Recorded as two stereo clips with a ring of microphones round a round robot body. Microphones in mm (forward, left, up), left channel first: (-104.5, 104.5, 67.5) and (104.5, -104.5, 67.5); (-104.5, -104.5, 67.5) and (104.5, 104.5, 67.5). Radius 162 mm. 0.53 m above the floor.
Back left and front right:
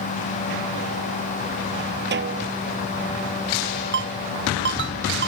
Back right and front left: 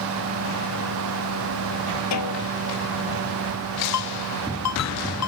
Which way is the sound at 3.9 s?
100° right.